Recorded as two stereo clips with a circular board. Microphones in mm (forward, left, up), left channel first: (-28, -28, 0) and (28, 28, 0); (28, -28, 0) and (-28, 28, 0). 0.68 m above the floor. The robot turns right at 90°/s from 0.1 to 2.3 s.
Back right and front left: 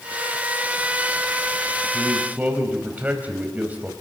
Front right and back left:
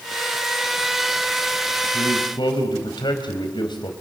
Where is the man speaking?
60° right, 4.5 m; by 3.9 s 25° right, 4.5 m.